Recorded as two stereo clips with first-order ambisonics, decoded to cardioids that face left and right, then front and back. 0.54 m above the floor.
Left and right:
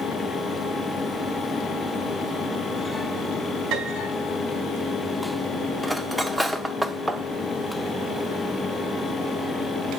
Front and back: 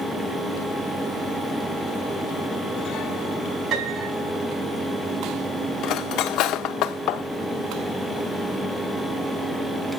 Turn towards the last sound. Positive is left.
turn(degrees=-5)